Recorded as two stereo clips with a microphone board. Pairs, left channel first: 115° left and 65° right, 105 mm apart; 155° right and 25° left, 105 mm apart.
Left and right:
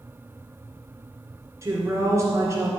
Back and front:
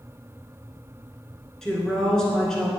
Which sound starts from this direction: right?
A woman speaking, at 1.6 s.